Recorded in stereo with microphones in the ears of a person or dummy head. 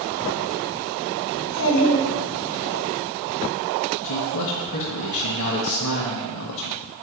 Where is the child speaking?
70° left (ahead or behind), 0.9 m; by 2.8 s 75° left (ahead or behind), 3 m.